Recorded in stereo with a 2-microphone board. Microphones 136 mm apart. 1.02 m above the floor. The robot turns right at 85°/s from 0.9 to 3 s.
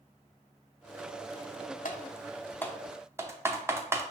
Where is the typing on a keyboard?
75° left (ahead or behind), 0.5 m; by 4.0 s 20° right (ahead or behind), 0.5 m.